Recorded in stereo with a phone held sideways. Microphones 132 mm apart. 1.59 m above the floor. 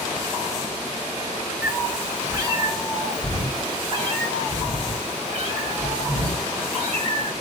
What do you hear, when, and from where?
1.6 s a cat meowing: 15° right (ahead or behind), 1.4 m; by 7.3 s 60° right (ahead or behind), 4 m